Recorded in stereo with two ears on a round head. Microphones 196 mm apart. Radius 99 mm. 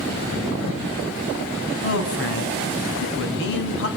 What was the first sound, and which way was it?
A man speaking, 65° left (ahead or behind).